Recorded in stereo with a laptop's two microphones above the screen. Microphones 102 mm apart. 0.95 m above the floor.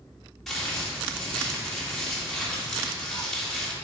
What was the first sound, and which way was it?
Crumpling, centre (ahead or behind).